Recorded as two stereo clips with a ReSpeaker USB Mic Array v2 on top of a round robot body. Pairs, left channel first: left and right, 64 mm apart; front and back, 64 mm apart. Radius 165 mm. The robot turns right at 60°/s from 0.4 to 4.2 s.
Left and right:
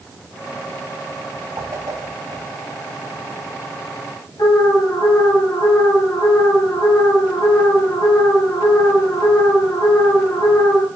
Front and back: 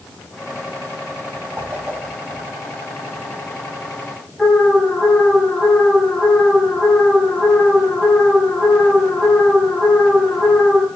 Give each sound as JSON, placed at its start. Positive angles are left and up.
{"t": 1.6, "sound": "a whoosh", "azimuth_deg": -120, "distance_m": 3.5}
{"t": 4.4, "sound": "an alarm", "azimuth_deg": 80, "distance_m": 5.0}